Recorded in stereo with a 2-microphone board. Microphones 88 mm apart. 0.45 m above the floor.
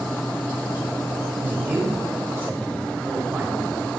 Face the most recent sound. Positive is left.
turn(degrees=-20)  # may be behind; listen again after turning